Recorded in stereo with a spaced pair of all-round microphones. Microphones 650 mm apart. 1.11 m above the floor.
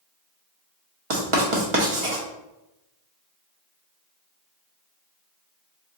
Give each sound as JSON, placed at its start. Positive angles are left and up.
{"t": 1.1, "sound": "writing", "side_deg": -50, "distance_m": 0.9}